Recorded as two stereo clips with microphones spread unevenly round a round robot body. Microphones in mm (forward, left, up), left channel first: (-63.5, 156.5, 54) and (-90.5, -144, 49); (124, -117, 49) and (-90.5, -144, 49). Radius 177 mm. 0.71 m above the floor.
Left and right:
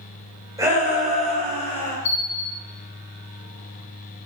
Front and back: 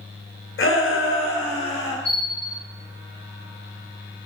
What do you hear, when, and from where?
0.6 s a shout: 15° right, 3 m; by 1.9 s 5° left, 4 m
2.0 s a bell: 60° left, 5.5 m